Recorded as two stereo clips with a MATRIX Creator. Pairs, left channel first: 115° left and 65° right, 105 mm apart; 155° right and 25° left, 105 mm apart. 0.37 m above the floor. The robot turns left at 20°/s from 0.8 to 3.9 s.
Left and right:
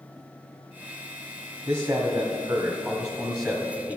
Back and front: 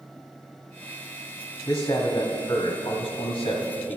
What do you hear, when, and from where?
1.7 s a man speaking: 110° right, 1.6 m; by 4.0 s 155° right, 1.6 m